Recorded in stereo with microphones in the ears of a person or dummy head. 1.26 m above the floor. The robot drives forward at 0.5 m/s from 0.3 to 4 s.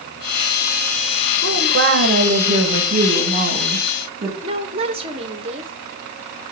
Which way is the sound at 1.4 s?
60° right (ahead or behind).